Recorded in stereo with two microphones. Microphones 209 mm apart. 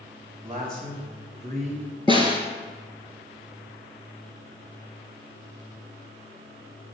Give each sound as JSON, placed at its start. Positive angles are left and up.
{"t": 0.4, "sound": "a man speaking", "side_deg": -40, "distance_m": 2.0}
{"t": 2.1, "sound": "a snare drum", "side_deg": -25, "distance_m": 1.3}